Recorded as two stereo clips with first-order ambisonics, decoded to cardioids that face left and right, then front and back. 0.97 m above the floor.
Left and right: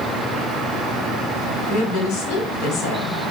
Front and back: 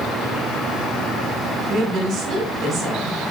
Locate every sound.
1.7 s a woman speaking: 125° left, 2.5 m